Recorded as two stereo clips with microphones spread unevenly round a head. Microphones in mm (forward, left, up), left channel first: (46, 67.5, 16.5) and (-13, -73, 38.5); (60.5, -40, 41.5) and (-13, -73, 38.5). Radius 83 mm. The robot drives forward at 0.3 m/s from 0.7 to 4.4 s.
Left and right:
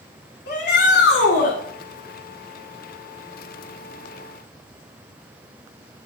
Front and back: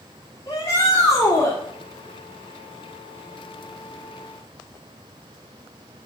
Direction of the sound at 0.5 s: 85° left.